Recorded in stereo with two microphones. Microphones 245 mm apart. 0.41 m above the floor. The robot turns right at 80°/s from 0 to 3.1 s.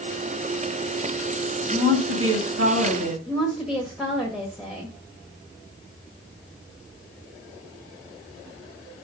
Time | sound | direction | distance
1.7 | a woman speaking | 155° right | 2.5 m
3.3 | a woman speaking | centre (ahead or behind) | 1.3 m